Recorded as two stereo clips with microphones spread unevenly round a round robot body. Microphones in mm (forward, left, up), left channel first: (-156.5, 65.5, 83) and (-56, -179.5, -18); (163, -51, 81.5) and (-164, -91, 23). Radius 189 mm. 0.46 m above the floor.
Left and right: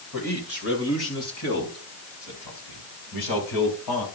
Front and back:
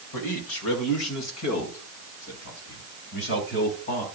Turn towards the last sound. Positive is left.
turn(degrees=75)